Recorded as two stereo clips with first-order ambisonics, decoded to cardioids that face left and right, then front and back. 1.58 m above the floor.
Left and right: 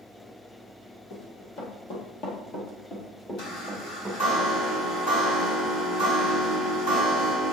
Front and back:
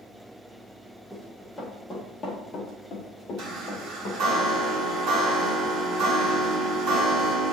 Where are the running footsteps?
95° left, 2.5 m; by 4.2 s straight ahead, 2 m.